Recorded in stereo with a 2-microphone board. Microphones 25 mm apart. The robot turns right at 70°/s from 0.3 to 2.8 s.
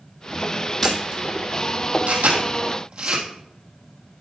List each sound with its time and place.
0.8 s a camera shutter: 5° left (ahead or behind), 2.5 m; by 3.2 s 45° right (ahead or behind), 2.5 m